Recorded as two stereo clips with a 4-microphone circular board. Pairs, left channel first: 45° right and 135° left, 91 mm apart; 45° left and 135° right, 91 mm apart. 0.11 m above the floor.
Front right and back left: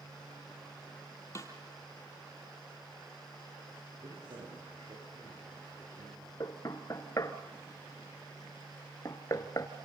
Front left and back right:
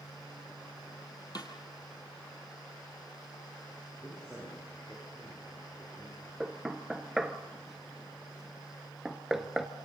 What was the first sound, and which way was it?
A snare drum, 10° left.